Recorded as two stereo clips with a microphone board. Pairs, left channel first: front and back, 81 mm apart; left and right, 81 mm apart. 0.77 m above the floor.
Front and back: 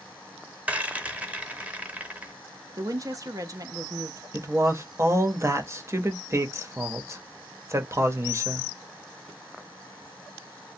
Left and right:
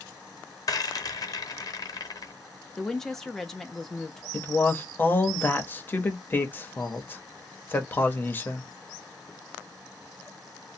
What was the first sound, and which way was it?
A rattle, 110° left.